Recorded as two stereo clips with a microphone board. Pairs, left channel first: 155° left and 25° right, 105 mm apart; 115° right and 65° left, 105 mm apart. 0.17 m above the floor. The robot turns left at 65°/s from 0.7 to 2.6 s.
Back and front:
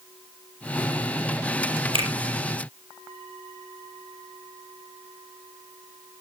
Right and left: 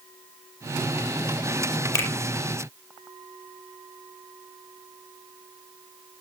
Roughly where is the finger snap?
Ahead right.